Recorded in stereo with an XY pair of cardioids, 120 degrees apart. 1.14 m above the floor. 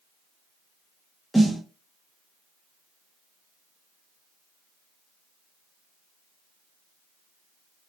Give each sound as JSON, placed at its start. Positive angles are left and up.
{"t": 1.3, "sound": "a snare drum", "azimuth_deg": 5, "distance_m": 0.8}